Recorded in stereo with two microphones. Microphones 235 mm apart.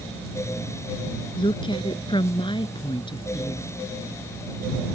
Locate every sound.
1.4 s a woman speaking: 20° left (ahead or behind)